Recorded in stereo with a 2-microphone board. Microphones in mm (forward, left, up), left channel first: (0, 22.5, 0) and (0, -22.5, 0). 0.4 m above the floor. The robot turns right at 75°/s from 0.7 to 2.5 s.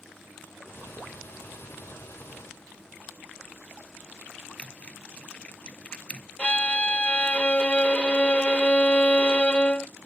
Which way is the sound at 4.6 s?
20° left (ahead or behind).